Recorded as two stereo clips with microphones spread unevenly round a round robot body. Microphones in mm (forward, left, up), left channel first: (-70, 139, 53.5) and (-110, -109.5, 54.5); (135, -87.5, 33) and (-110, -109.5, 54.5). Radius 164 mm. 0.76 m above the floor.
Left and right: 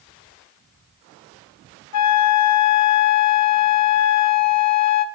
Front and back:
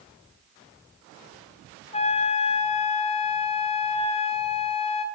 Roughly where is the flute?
Left.